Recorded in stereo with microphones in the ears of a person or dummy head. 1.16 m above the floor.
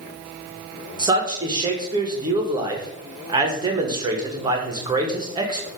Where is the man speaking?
30° right (ahead or behind), 1.3 m.